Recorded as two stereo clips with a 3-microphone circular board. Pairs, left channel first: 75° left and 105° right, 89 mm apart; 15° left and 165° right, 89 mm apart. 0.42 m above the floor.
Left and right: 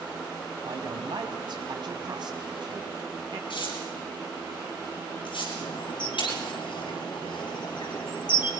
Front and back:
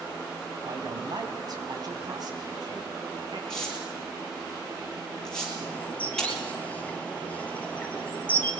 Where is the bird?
85° left, 2 m.